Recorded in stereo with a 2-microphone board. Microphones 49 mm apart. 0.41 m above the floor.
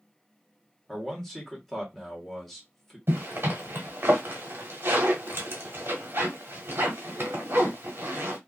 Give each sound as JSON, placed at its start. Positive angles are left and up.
{"t": 0.9, "sound": "a man speaking", "side_deg": 5, "distance_m": 1.2}
{"t": 3.1, "sound": "a zipper", "side_deg": -50, "distance_m": 0.9}